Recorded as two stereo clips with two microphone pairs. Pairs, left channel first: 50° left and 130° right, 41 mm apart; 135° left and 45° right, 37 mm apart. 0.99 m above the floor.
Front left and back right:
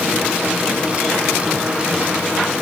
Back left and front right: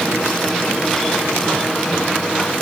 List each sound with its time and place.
Only background noise.